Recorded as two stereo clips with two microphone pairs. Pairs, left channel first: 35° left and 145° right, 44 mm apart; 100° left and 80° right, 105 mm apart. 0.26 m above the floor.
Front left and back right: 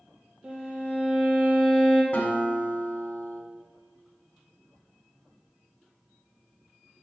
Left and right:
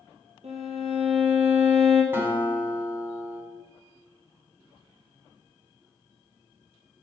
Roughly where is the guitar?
Ahead.